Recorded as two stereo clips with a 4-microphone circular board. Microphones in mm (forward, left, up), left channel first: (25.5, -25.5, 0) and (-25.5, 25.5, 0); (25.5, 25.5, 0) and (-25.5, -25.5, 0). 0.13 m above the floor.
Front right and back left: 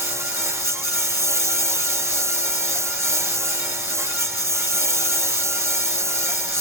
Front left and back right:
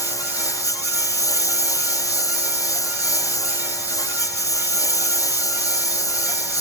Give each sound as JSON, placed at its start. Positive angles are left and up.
{"t": 0.0, "sound": "a lawn mower", "azimuth_deg": 85}